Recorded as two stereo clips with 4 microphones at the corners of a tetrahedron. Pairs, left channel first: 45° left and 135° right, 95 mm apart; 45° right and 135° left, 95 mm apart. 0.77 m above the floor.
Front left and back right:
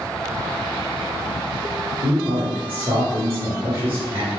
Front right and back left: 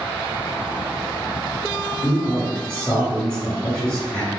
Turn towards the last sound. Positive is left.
turn(degrees=-110)